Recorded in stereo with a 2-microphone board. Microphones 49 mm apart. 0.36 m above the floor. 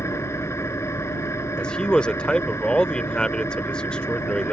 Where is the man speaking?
20° left (ahead or behind).